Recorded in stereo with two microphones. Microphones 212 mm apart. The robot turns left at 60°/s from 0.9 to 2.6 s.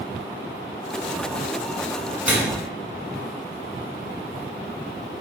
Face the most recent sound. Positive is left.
turn(degrees=-20)  # may be behind; listen again after turning